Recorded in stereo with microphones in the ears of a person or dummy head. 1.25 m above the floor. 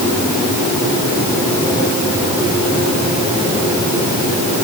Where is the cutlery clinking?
I don't hear cutlery clinking.